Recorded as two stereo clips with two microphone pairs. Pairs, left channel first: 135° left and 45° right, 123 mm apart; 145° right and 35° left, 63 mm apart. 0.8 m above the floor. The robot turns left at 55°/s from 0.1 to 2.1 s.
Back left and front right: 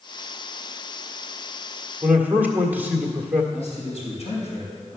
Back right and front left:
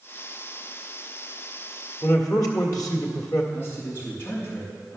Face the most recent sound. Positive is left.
turn(degrees=165)